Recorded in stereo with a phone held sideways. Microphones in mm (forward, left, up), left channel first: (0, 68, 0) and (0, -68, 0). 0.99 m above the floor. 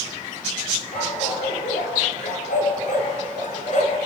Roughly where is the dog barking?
Left.